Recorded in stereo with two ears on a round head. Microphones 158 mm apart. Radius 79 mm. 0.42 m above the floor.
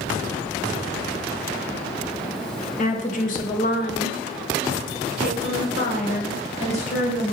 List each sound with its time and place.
2.8 s a woman speaking: 40° left (ahead or behind), 1.7 m; by 7.3 s 35° left (ahead or behind), 2.5 m